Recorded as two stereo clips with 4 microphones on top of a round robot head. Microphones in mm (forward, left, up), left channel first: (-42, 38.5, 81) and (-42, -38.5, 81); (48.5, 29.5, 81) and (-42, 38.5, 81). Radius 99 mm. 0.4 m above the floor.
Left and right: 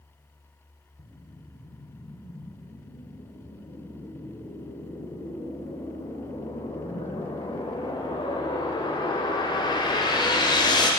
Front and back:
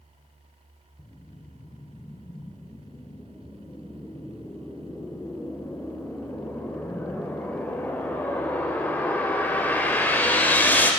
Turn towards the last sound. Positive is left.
turn(degrees=65)